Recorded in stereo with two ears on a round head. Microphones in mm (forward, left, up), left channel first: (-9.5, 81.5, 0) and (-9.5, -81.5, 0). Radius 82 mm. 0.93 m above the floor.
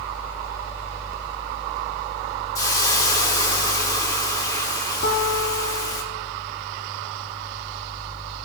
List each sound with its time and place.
2.5 s a hiss: 20° left (ahead or behind), 1.1 m
5.0 s a guitar: 65° left (ahead or behind), 1.8 m